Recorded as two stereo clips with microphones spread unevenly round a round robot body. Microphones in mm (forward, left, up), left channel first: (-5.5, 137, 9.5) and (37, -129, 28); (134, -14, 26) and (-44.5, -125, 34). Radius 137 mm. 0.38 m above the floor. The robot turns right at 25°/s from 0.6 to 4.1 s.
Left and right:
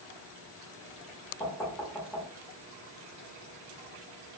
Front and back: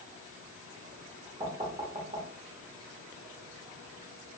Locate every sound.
1.4 s knocking: 160° left, 0.5 m; by 2.3 s 175° right, 0.5 m